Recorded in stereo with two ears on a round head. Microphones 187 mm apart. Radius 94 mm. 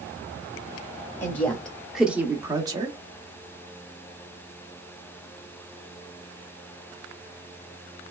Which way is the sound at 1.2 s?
10° left (ahead or behind).